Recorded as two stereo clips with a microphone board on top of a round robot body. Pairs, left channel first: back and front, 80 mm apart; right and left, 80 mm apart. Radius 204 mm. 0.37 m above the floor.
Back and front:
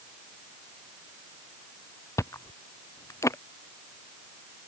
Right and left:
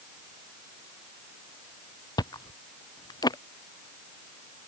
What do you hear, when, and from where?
2.2 s chewing: 125° right